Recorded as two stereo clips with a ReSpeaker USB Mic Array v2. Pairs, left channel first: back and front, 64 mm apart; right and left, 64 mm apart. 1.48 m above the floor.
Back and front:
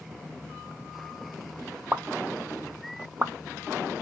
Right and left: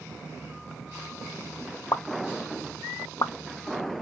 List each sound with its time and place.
1.9 s a pop: 65° right, 0.5 m